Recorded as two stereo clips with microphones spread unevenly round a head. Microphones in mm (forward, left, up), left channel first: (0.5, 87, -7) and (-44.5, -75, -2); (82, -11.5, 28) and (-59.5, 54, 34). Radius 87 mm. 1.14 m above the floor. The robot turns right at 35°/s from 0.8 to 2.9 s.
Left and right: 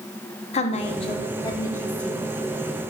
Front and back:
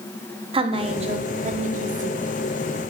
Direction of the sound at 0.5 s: 110° left.